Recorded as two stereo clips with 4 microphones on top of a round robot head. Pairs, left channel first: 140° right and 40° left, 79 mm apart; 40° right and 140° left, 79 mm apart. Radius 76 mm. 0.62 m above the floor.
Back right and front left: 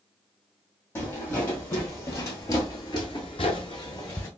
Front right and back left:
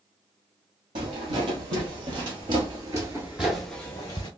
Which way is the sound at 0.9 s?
155° left.